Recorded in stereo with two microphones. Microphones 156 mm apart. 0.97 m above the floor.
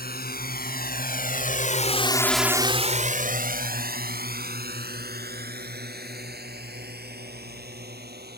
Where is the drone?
80° left; by 8.4 s 85° right.